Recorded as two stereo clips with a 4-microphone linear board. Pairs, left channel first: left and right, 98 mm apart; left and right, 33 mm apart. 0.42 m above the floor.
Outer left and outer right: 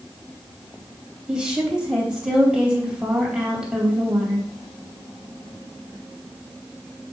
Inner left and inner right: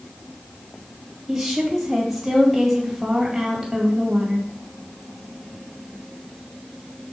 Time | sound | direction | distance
1.3 | a woman speaking | 10° right (ahead or behind) | 2.5 m